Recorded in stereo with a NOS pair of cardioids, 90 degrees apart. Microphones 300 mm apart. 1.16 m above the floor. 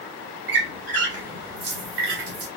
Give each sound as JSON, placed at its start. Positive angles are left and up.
{"t": 0.5, "sound": "a squeak", "azimuth_deg": -50, "distance_m": 2.0}